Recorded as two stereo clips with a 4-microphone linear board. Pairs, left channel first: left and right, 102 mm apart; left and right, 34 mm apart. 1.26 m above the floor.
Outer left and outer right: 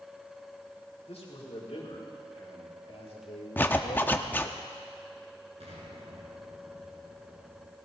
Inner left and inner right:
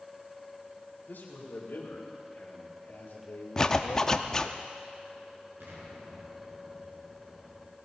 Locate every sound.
1.1 s a man speaking: 85° left, 4.5 m; by 4.6 s 75° left (ahead or behind), 2 m
3.6 s a zipper: 20° left (ahead or behind), 0.8 m
5.6 s an explosion: 75° right (ahead or behind), 4 m